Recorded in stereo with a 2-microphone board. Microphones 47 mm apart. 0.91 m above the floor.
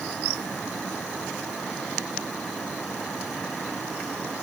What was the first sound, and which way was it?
Only background noise.